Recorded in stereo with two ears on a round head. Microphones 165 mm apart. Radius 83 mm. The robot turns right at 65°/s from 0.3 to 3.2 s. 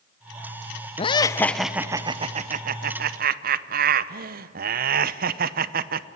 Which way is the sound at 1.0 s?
140° left.